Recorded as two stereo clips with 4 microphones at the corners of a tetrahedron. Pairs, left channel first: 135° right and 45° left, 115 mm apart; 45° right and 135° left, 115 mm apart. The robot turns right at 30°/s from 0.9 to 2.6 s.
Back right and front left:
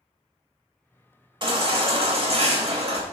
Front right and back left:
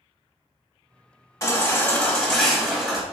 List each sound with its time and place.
1.4 s a baby crying: 10° left, 1.0 m; by 3.0 s 45° left, 1.0 m